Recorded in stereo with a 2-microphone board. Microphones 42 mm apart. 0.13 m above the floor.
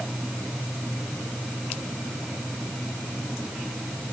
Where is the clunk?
I don't hear a clunk.